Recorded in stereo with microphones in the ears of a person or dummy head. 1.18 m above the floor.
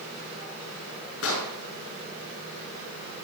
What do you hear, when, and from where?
1.2 s an explosion: 70° left (ahead or behind), 5 m